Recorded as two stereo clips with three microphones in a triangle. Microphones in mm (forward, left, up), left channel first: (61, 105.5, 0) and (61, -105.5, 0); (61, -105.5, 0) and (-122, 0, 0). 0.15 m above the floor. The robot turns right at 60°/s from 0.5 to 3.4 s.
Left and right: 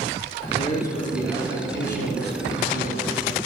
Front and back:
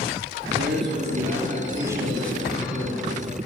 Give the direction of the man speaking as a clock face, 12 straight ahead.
7 o'clock.